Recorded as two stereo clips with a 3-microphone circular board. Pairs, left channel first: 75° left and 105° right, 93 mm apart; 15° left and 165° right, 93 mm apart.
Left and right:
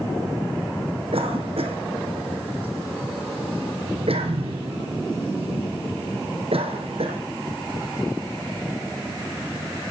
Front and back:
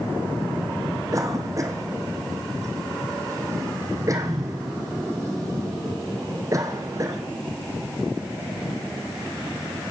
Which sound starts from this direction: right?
A cough, at 1.1 s.